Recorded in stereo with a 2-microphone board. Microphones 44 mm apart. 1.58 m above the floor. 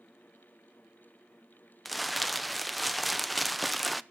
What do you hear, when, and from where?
1.9 s crumpling: centre (ahead or behind), 0.5 m